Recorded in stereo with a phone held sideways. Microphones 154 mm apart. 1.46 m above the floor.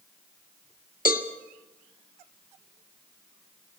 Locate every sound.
1.1 s a cowbell: 65° left (ahead or behind), 1.8 m